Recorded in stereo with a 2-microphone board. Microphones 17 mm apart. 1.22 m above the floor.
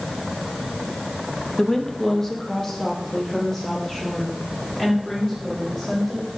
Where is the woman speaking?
25° left (ahead or behind), 0.7 m; by 6.3 s 20° left (ahead or behind), 4 m.